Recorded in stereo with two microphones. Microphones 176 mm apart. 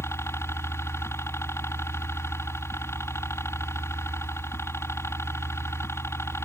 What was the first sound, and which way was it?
A helicopter, 15° left (ahead or behind).